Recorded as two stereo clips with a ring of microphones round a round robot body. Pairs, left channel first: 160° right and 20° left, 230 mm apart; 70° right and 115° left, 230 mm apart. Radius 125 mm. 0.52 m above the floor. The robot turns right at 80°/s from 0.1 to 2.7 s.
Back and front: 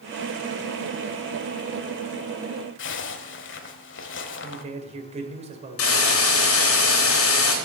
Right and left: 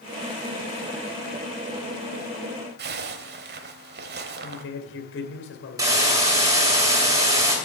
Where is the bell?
I don't hear a bell.